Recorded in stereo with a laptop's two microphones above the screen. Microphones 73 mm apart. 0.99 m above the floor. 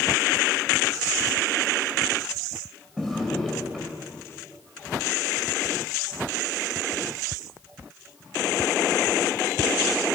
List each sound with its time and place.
3.0 s a drawer: 5° left (ahead or behind), 1.8 m